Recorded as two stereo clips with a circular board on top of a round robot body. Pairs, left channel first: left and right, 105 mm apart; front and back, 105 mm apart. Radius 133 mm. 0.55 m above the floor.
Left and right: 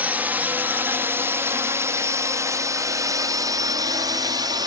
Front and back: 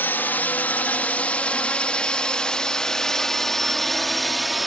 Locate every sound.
0.0 s a drone: 40° right; by 4.7 s 90° right